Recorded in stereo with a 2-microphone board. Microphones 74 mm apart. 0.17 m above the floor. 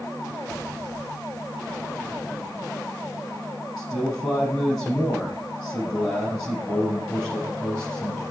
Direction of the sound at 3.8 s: Centre (ahead or behind).